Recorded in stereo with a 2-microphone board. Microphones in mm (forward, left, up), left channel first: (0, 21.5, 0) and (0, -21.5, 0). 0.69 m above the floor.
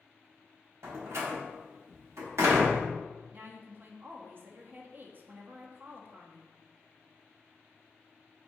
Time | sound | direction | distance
0.8 | a door slam | 65° right (ahead or behind) | 1.2 m
3.3 | a woman speaking | 40° right (ahead or behind) | 0.6 m